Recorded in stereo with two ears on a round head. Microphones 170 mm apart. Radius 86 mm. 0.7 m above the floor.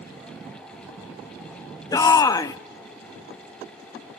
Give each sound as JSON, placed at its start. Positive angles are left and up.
{"t": 1.9, "sound": "a shout", "side_deg": 20, "distance_m": 0.6}